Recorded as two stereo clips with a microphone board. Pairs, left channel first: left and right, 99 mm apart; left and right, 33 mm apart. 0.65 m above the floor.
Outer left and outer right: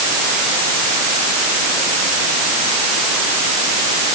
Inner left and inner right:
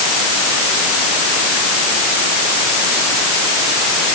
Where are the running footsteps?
No running footsteps in this recording.